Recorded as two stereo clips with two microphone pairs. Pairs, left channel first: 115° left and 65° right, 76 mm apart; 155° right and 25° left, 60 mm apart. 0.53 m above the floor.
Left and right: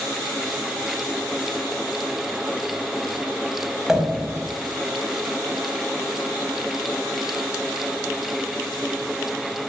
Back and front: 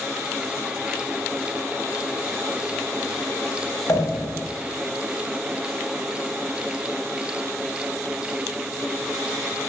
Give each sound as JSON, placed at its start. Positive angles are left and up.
{"t": 3.9, "sound": "a pop", "azimuth_deg": -145, "distance_m": 4.0}